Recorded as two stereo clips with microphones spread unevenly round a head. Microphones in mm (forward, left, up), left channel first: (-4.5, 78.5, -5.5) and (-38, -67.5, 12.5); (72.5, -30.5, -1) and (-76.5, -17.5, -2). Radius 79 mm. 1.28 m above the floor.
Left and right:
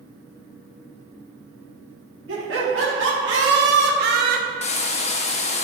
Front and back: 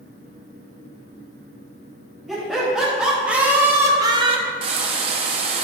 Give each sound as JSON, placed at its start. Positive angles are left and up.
{"t": 2.3, "sound": "laughter", "azimuth_deg": -95, "distance_m": 3.0}
{"t": 4.6, "sound": "frying", "azimuth_deg": 120, "distance_m": 0.7}